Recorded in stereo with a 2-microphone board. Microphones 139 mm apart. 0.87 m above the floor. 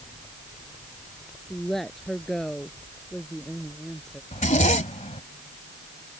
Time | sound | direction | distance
1.5 | a woman speaking | 5° left (ahead or behind) | ?
4.3 | a zipper | 60° left (ahead or behind) | ?